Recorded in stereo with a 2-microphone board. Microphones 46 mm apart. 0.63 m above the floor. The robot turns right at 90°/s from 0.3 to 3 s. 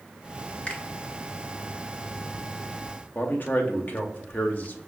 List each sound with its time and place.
0.7 s a finger snap: 25° left (ahead or behind), 0.8 m; by 0.8 s 15° left (ahead or behind), 0.8 m
3.1 s a man speaking: 40° left (ahead or behind), 0.6 m